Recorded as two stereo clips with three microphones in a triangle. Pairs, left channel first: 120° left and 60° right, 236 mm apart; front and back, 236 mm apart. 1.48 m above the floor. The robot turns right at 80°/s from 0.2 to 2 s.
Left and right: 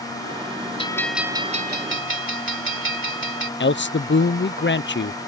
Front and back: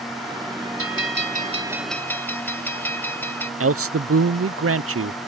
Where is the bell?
175° right; by 3.5 s 80° right.